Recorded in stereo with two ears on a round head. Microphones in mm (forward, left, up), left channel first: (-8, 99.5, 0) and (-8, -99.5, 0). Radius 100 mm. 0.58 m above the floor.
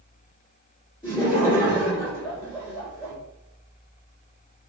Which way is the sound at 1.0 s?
20° left (ahead or behind).